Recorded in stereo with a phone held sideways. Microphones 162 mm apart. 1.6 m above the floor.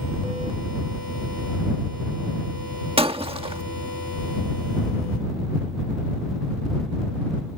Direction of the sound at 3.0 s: 35° right (ahead or behind).